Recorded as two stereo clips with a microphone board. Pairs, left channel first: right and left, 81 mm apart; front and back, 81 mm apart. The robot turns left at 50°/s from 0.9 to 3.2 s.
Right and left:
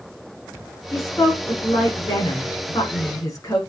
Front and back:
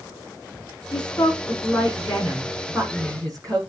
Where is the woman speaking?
25° right, 7.5 m; by 3.6 s 135° right, 7.5 m.